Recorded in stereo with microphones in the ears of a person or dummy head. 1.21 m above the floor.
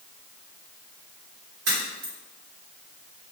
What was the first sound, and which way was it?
A crack, 85° right.